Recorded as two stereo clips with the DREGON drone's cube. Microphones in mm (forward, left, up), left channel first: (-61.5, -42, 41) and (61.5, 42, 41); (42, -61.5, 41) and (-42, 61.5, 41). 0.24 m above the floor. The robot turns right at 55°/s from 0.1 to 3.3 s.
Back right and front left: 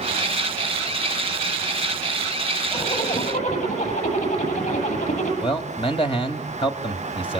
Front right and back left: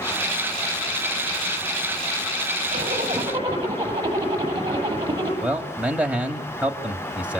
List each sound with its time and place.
2.7 s a zipper: 155° left, 9.5 m; by 5.3 s 170° right, 9.5 m
5.4 s a man speaking: 160° right, 1.7 m